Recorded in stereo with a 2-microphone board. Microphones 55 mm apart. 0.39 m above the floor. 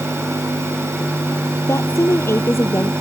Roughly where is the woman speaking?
Left.